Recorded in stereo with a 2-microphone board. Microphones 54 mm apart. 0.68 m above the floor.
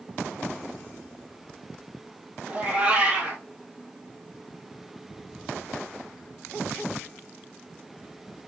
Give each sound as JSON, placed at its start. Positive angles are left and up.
{"t": 2.5, "sound": "a cat meowing", "side_deg": -20, "distance_m": 1.6}